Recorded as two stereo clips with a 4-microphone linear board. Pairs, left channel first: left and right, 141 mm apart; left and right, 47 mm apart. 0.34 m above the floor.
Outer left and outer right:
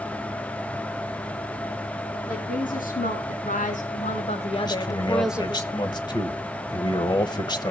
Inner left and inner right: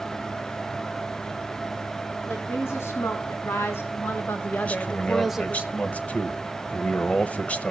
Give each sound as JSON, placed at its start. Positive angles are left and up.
{"t": 2.3, "sound": "a woman speaking", "side_deg": 75, "distance_m": 3.5}
{"t": 4.7, "sound": "a man speaking", "side_deg": 30, "distance_m": 1.2}